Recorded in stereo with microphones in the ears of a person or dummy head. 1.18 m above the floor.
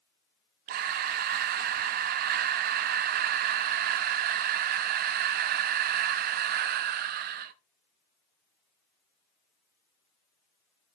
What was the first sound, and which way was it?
Breathing, 50° right (ahead or behind).